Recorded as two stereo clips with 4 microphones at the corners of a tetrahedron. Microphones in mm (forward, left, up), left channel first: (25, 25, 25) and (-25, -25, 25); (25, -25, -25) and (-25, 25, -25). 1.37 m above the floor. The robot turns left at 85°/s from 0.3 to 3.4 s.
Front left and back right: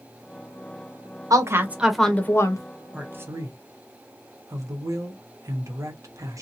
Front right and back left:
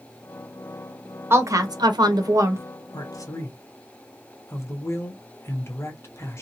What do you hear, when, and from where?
1.3 s a woman speaking: 170° right, 0.8 m; by 2.6 s 75° left, 0.8 m
2.9 s a man speaking: 55° right, 0.9 m; by 6.4 s 95° right, 0.9 m